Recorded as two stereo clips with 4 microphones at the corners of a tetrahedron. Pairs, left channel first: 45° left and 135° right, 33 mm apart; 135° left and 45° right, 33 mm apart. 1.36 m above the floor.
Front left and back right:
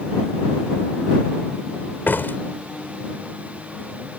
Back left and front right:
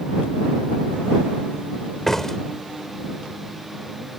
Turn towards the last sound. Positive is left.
turn(degrees=55)